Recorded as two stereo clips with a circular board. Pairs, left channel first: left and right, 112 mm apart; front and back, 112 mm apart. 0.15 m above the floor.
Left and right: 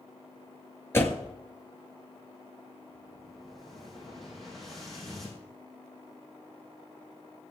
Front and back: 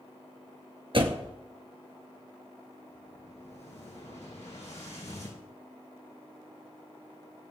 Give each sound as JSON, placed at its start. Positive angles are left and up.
{"t": 0.9, "sound": "a door slam", "azimuth_deg": 155, "distance_m": 1.9}
{"t": 2.9, "sound": "an explosion", "azimuth_deg": 0, "distance_m": 5.0}